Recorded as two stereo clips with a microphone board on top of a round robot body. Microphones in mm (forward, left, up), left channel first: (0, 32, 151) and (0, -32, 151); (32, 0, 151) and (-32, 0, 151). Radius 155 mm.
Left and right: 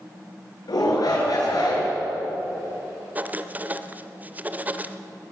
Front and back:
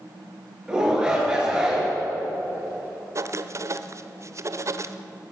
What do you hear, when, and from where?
0.7 s a shout: 105° left, 6.5 m
3.1 s writing: 150° right, 1.1 m